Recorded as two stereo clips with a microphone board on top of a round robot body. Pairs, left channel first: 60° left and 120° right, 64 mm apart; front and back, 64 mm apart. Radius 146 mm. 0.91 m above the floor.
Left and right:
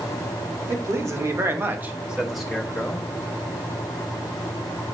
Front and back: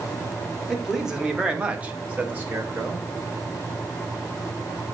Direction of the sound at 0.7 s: 95° right.